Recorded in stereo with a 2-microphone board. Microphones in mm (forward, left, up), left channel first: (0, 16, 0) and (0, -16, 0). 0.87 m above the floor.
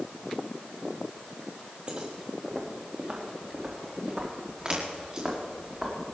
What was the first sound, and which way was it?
Footsteps, 40° right (ahead or behind).